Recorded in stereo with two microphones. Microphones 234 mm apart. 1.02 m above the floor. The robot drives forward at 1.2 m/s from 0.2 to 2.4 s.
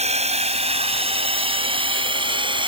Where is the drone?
30° right (ahead or behind); by 2.7 s 20° right (ahead or behind).